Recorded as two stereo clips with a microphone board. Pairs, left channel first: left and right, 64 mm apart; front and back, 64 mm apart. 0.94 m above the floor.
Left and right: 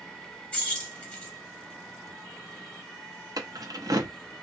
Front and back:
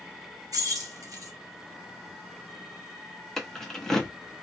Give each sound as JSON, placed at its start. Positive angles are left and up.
{"t": 0.5, "sound": "keys jangling", "azimuth_deg": 160, "distance_m": 1.3}
{"t": 3.4, "sound": "keys jangling", "azimuth_deg": -85, "distance_m": 0.7}